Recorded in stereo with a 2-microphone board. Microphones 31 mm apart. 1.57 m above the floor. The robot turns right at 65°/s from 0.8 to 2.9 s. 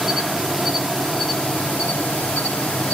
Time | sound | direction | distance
0.0 | an insect | straight ahead | 0.8 m